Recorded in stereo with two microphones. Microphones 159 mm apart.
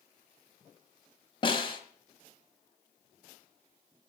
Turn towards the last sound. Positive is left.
turn(degrees=35)  # may be behind; listen again after turning